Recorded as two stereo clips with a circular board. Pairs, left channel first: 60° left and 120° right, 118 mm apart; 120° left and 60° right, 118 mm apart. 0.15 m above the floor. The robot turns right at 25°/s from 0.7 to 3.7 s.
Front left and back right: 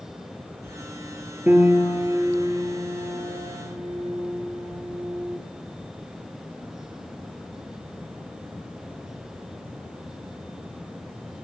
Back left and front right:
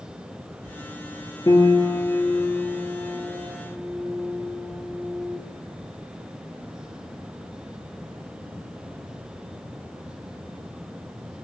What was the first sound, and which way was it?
A piano, 170° left.